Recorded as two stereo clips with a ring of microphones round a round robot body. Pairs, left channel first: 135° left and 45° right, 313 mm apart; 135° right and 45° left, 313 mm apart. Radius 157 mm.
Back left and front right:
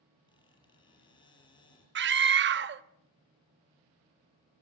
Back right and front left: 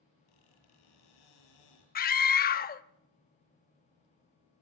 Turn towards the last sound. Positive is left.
turn(degrees=-85)